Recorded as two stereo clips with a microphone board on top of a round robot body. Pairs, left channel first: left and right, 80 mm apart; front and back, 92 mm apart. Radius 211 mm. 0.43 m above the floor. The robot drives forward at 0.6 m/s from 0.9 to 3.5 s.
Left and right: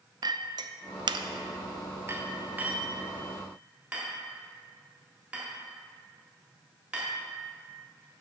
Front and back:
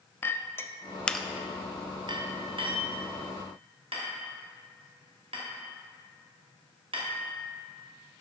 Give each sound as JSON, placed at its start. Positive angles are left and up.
{"t": 0.2, "sound": "a clink", "azimuth_deg": -65, "distance_m": 0.5}